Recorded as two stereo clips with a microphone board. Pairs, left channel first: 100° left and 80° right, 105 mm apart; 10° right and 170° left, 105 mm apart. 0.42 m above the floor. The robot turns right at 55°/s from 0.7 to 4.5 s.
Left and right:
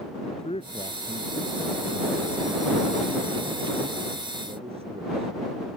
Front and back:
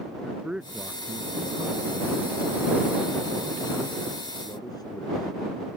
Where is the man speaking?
85° left; by 5.3 s 65° right.